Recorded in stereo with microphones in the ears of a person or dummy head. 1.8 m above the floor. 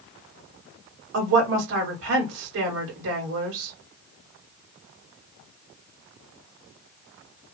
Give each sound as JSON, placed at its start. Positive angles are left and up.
{"t": 1.1, "sound": "a woman speaking", "side_deg": -70, "distance_m": 1.5}